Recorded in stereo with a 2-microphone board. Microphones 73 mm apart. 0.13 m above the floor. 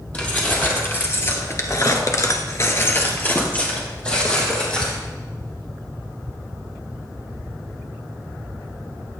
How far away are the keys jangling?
About 3.5 m.